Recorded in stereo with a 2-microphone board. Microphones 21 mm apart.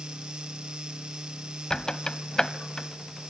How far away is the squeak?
About 0.8 m.